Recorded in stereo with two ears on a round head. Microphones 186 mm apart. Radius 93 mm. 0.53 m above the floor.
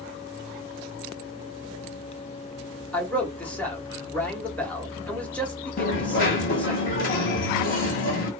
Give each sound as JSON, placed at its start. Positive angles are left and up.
{"t": 2.9, "sound": "a man speaking", "side_deg": 5, "distance_m": 0.9}
{"t": 5.8, "sound": "a dropped coin", "side_deg": 40, "distance_m": 1.1}